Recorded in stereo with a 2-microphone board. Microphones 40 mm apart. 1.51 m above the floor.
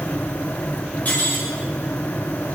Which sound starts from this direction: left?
Cutlery clinking, at 1.1 s.